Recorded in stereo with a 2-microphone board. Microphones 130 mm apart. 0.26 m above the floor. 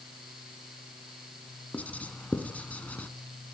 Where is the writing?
10° left (ahead or behind), 1.9 m.